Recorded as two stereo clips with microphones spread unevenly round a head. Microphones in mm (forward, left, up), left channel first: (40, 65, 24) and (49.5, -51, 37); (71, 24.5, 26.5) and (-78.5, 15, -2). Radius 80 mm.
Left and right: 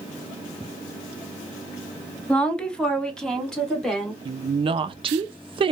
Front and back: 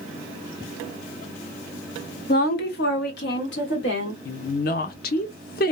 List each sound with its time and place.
2.3 s a woman speaking: 10° left, 0.6 m
4.2 s a woman speaking: 35° right, 0.5 m